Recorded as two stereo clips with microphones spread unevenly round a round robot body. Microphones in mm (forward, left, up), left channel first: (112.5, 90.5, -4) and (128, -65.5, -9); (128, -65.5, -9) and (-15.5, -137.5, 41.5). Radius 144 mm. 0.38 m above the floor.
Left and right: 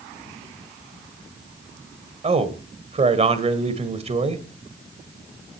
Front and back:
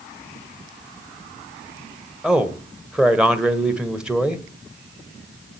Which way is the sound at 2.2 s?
55° right.